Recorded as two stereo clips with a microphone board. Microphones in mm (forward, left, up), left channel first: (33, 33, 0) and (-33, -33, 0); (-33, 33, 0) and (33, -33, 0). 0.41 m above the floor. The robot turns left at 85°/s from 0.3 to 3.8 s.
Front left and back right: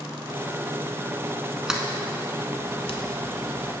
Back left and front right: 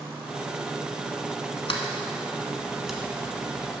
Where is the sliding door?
145° left, 0.9 m; by 3.0 s 35° left, 0.9 m.